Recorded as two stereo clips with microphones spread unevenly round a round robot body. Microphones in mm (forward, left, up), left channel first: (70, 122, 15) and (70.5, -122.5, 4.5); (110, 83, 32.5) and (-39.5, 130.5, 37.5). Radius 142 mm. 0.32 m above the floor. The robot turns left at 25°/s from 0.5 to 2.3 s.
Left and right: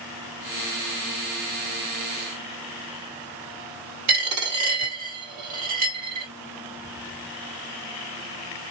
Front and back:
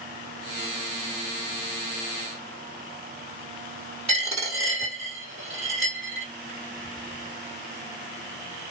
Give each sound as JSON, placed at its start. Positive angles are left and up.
{"t": 4.1, "sound": "a dropped coin", "azimuth_deg": -125, "distance_m": 1.6}